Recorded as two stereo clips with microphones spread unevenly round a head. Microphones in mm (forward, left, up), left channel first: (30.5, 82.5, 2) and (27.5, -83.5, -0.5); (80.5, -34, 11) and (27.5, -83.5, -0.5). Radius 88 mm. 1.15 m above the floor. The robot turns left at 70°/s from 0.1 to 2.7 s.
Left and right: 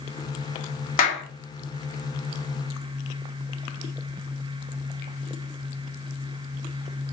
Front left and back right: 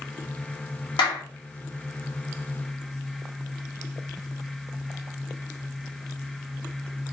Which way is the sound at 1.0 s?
50° left.